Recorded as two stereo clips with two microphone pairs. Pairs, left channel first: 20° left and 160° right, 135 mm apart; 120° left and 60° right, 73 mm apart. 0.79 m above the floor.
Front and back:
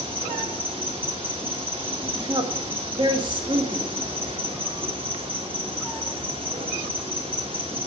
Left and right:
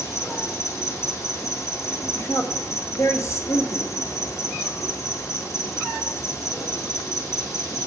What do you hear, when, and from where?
0.0 s an insect: 155° left, 1.9 m
2.1 s a woman speaking: 150° left, 1.7 m